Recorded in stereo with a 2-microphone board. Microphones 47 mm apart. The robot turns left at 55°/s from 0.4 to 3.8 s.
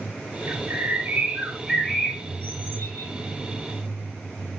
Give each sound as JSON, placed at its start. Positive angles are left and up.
{"t": 0.5, "sound": "a bird", "azimuth_deg": -110, "distance_m": 8.5}